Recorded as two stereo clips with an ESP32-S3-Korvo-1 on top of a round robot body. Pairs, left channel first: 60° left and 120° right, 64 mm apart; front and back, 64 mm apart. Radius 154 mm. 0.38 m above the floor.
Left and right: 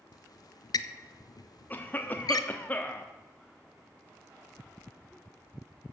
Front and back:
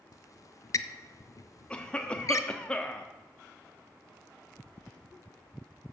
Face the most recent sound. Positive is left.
turn(degrees=50)